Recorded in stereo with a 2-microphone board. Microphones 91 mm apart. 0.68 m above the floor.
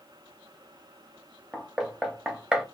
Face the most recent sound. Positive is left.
turn(degrees=-5)  # may be behind; listen again after turning